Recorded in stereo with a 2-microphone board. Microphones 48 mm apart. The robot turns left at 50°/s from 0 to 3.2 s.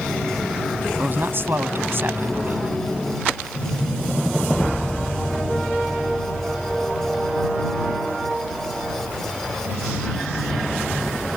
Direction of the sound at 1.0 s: 55° right.